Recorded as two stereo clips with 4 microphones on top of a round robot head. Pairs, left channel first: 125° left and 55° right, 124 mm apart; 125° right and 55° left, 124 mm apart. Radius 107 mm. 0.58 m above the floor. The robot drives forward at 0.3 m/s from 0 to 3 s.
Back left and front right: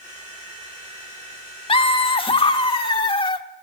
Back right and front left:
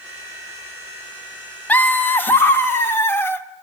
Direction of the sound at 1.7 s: 160° left.